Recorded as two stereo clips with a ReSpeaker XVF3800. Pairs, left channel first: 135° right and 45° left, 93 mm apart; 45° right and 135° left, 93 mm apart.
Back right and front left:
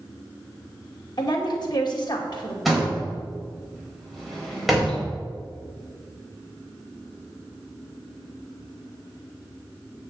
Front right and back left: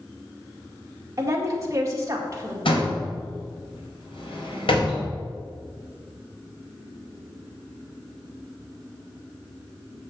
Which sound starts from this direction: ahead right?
A door slam, at 2.6 s.